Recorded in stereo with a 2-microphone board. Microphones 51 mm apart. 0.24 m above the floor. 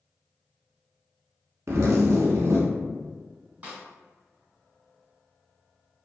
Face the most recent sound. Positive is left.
turn(degrees=-25)  # may be behind; listen again after turning